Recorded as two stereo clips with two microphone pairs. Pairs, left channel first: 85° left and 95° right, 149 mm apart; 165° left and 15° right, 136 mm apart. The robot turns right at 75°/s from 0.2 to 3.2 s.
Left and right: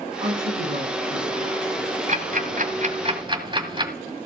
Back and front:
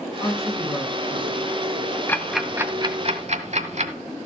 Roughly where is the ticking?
Behind right.